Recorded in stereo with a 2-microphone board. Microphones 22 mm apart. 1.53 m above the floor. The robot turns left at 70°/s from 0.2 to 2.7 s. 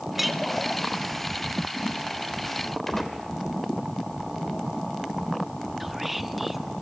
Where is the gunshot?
15° left (ahead or behind), 2.5 m.